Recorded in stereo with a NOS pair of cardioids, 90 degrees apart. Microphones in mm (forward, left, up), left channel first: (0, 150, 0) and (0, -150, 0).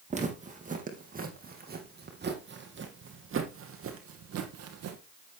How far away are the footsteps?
About 4 m.